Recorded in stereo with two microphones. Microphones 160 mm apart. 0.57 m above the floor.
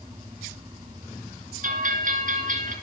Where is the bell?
55° right (ahead or behind), 3 m.